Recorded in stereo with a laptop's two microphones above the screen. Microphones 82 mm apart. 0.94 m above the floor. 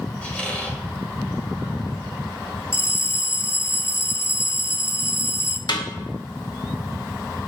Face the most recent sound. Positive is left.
turn(degrees=60)  # may be behind; listen again after turning